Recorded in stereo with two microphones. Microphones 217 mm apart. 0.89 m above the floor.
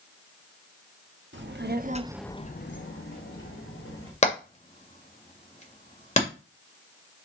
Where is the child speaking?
60° right (ahead or behind), 1.4 m; by 4.1 s 80° left, 2.5 m.